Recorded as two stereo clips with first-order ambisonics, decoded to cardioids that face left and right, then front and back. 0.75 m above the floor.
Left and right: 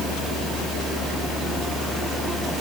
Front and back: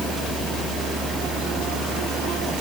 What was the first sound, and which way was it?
Only background noise.